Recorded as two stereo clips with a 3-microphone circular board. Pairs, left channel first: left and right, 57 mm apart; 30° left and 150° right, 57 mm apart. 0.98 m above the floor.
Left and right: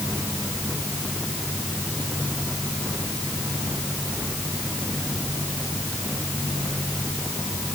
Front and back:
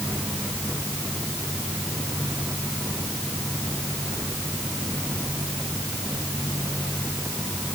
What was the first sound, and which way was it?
Only background noise.